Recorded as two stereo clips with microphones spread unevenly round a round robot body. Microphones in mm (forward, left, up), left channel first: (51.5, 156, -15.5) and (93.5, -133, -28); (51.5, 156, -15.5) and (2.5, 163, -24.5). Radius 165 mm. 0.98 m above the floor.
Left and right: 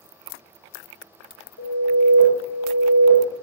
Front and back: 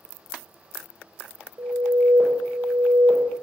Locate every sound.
1.6 s an alarm: 150° left, 3.5 m